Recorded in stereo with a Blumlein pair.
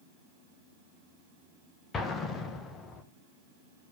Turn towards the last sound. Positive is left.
turn(degrees=20)